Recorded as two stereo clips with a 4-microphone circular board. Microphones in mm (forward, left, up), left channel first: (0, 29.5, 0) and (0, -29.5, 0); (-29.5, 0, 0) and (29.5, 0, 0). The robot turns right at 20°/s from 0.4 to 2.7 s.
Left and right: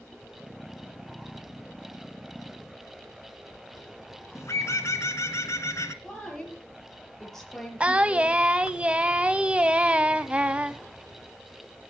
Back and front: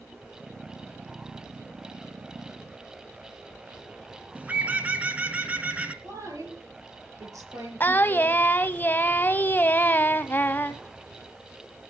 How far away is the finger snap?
No finger snap in this recording.